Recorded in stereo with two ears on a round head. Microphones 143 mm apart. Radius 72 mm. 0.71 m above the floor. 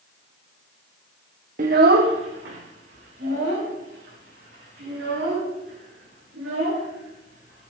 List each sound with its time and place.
1.6 s a child speaking: 50° right (ahead or behind), 0.6 m; by 7.7 s 80° right, 8.5 m